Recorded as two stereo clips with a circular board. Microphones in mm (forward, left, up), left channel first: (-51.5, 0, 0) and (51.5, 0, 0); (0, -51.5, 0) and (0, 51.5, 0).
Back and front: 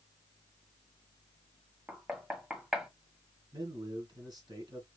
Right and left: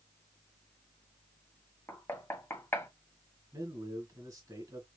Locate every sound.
1.9 s knocking: 75° right, 1.1 m
3.5 s a man speaking: 40° left, 2.5 m